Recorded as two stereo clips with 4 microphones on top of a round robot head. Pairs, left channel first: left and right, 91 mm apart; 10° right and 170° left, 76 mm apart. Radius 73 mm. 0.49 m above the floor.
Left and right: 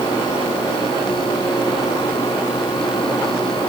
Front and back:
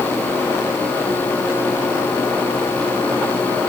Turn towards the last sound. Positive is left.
No sound to turn to.